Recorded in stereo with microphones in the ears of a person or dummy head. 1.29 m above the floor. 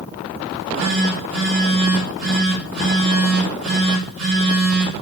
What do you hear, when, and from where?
0.5 s a phone buzzing: 75° right (ahead or behind), 4.5 m